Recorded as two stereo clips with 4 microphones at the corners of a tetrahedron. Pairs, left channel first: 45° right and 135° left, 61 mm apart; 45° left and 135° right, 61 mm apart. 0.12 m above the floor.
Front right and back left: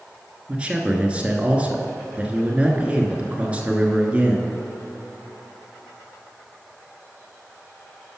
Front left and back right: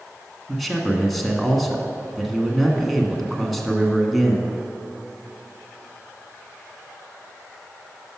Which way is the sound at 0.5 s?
130° left.